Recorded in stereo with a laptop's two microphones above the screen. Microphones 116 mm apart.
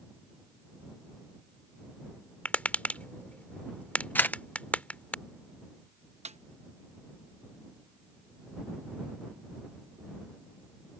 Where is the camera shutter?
15° left (ahead or behind).